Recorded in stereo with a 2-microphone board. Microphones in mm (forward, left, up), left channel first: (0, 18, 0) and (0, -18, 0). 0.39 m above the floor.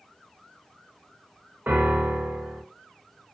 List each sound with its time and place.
1.7 s a piano: 55° right (ahead or behind), 0.7 m